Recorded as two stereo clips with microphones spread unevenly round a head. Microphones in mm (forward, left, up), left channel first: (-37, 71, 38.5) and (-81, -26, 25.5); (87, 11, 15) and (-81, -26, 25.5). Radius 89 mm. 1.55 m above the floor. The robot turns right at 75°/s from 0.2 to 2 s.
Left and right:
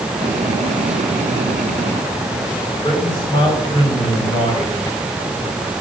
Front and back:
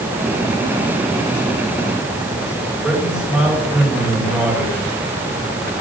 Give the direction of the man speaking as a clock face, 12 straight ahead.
8 o'clock.